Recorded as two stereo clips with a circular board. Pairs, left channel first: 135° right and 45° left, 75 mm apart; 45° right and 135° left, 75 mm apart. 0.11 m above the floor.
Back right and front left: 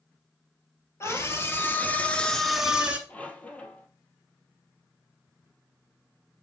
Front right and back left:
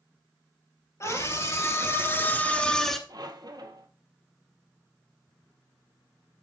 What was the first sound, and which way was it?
A scream, 85° right.